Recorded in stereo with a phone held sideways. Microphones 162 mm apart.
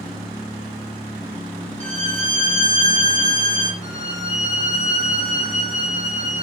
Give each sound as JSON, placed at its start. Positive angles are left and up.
{"t": 1.8, "sound": "a violin", "side_deg": -50, "distance_m": 4.0}
{"t": 3.8, "sound": "a violin", "side_deg": -45, "distance_m": 9.5}